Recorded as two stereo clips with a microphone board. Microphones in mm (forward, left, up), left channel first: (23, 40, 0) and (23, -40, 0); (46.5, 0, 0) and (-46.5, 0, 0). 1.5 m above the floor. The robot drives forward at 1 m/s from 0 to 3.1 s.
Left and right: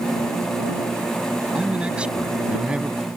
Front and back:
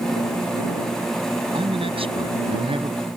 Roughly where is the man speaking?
Behind.